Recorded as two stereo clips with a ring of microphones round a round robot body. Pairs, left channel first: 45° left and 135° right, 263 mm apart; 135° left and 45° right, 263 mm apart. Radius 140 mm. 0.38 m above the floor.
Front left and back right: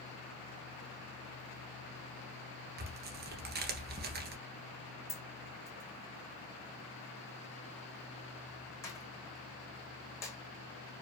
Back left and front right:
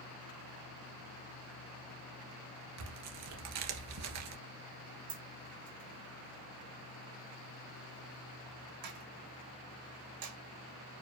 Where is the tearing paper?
80° right, 1.6 m.